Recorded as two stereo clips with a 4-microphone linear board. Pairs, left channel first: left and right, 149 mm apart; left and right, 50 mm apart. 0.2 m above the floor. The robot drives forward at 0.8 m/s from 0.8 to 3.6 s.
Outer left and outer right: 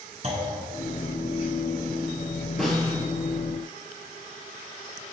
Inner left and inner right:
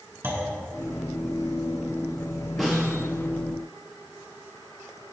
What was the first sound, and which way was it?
A clunk, 50° right (ahead or behind).